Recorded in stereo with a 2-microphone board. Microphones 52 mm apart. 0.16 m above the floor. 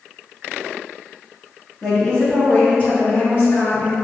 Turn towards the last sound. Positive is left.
turn(degrees=50)  # may be behind; listen again after turning